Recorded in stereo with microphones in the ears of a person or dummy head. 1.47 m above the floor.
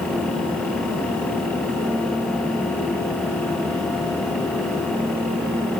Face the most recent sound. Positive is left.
No sound to turn to.